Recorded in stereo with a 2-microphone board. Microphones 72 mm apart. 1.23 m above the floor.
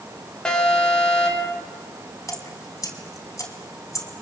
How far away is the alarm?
About 5 m.